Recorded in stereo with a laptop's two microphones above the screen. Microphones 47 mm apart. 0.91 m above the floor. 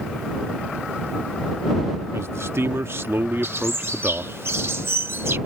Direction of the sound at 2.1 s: 65° right (ahead or behind).